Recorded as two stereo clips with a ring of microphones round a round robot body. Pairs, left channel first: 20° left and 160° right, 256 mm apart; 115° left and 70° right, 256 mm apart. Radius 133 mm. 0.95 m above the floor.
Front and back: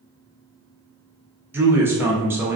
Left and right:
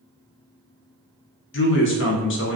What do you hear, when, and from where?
1.5 s a man speaking: 125° left, 0.6 m